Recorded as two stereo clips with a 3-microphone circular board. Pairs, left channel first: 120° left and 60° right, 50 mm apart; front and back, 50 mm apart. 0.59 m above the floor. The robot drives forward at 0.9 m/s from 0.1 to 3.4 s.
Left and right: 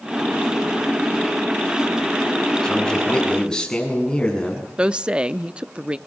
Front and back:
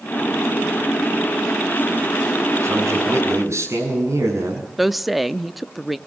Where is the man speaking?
165° right, 6.5 m.